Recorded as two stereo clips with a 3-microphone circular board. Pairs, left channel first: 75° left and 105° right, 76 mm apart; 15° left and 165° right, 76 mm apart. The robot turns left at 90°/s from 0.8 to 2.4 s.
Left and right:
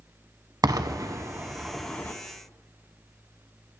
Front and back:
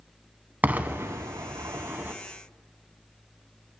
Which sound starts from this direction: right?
An explosion, at 0.6 s.